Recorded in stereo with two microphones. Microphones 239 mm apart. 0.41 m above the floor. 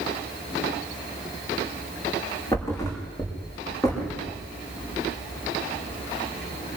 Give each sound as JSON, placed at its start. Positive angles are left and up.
{"t": 2.5, "sound": "a thud", "side_deg": 15, "distance_m": 7.0}